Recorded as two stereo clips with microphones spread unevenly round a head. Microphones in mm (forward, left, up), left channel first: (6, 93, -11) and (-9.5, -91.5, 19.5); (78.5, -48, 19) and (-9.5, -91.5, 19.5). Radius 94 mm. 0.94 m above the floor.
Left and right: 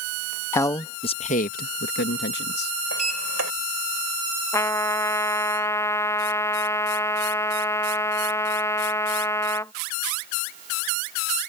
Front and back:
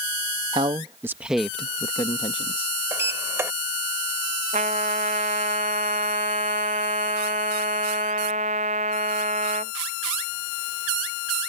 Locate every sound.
0.5 s a man speaking: 160° left; by 2.7 s 60° left
2.9 s a sliding door: 90° right
4.5 s a trumpet: 160° left